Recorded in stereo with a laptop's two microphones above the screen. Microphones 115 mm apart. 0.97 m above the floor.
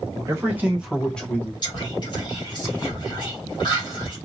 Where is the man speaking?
25° right (ahead or behind), 1.5 m; by 1.5 s 25° left (ahead or behind), 1.0 m.